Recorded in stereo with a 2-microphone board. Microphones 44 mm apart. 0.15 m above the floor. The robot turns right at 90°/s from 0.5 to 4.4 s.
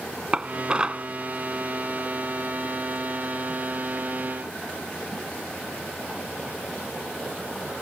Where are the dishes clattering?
25° right (ahead or behind); by 1.1 s 20° right (ahead or behind).